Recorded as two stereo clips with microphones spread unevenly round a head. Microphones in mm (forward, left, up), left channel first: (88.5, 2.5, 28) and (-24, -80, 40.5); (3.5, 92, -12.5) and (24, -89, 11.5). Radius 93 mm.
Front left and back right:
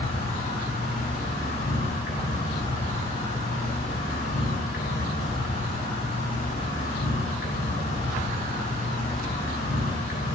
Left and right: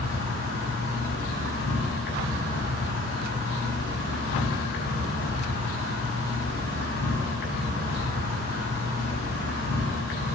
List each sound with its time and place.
0.0 s an insect: 75° left, 7 m